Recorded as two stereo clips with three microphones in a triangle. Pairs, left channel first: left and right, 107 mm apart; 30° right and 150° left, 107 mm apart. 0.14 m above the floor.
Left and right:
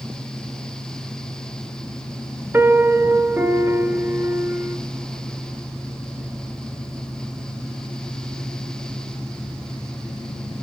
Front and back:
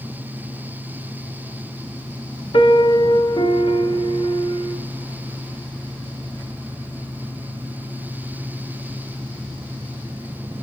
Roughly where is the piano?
Ahead right.